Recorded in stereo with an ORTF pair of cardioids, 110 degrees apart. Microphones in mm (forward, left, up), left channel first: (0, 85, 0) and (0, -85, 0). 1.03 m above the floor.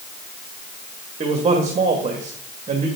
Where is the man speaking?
40° right, 1.5 m.